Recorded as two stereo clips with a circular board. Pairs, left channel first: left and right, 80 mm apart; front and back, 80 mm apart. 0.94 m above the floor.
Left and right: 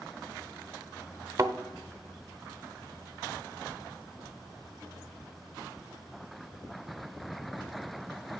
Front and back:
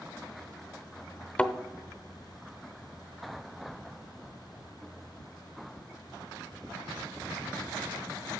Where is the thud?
65° right, 0.7 m.